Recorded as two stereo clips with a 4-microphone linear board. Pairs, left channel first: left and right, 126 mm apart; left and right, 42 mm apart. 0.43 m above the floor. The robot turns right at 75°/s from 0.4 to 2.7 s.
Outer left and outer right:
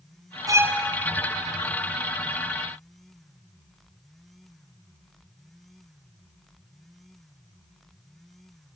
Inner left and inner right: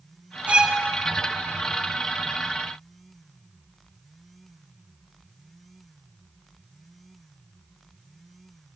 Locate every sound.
0.5 s a violin: 30° right (ahead or behind), 1.6 m; by 0.8 s 5° right (ahead or behind), 1.6 m